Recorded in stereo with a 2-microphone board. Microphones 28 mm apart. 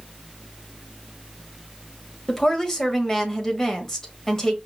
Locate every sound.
2.3 s a woman speaking: 15° left (ahead or behind), 1.2 m